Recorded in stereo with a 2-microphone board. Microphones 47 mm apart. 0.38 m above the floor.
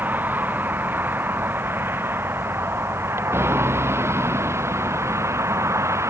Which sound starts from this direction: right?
A vehicle, at 0.0 s.